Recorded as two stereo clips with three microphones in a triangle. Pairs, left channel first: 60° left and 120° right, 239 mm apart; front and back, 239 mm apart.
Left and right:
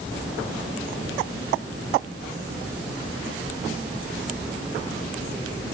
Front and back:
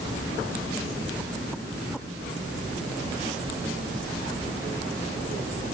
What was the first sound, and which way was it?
Only background noise.